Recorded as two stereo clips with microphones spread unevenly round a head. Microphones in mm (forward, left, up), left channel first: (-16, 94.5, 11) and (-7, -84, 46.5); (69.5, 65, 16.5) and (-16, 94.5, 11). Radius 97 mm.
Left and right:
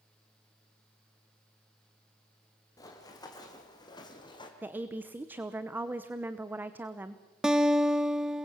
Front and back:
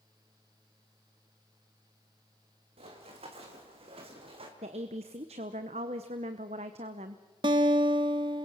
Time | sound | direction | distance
2.8 | running footsteps | 170° left | 4 m
4.6 | a woman speaking | 165° right | 0.9 m
7.4 | a guitar | 165° right | 0.7 m